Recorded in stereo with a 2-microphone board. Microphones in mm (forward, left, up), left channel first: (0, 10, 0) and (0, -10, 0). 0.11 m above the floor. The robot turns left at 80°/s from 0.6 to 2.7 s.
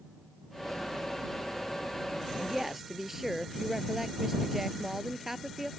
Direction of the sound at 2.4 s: 35° right (ahead or behind).